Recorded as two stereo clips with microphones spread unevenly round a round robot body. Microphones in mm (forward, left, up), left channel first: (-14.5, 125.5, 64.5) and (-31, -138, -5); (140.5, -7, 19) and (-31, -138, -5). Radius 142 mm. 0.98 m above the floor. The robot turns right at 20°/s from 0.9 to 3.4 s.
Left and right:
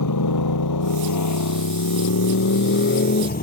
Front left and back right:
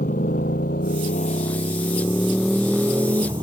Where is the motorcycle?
100° left; by 3.4 s 140° left.